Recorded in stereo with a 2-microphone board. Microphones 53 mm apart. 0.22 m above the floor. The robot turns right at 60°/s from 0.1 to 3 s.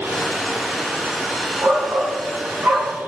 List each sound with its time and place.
1.6 s a shout: 110° right, 2 m; by 3.0 s 30° right, 2 m